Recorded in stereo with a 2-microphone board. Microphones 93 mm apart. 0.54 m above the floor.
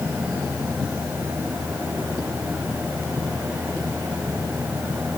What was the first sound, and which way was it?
Only background noise.